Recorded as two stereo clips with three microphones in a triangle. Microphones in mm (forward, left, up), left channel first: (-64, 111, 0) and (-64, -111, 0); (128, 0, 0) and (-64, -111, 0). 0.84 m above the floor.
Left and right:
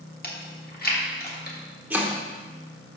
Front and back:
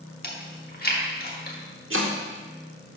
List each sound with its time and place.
0.2 s chewing: 60° left, 1.4 m
1.9 s chopping: 175° right, 1.1 m